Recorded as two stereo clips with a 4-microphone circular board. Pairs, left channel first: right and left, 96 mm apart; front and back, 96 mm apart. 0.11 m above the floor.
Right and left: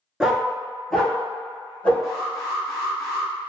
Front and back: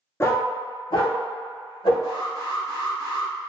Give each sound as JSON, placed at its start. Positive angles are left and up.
{"t": 0.2, "sound": "a dog barking", "azimuth_deg": 15, "distance_m": 0.6}
{"t": 2.0, "sound": "an alarm", "azimuth_deg": 170, "distance_m": 1.6}